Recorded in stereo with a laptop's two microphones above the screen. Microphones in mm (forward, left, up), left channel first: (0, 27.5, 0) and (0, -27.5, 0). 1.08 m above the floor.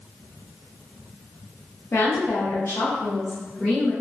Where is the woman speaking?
55° left (ahead or behind), 1.1 m; by 3.9 s 15° left (ahead or behind), 1.0 m.